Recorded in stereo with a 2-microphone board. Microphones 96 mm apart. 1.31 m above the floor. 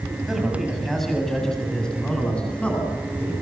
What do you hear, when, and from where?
0.3 s a man speaking: 5° right (ahead or behind), 7.5 m; by 3.3 s 15° left (ahead or behind), 10.5 m